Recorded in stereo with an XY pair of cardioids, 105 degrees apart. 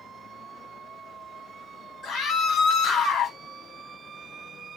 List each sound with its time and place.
2.0 s a scream: 60° left, 1.7 m